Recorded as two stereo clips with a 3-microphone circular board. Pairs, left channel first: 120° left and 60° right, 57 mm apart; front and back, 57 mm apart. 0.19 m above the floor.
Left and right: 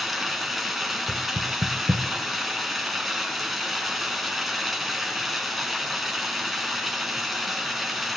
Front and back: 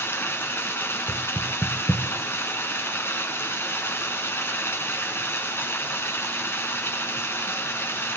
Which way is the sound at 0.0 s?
30° left.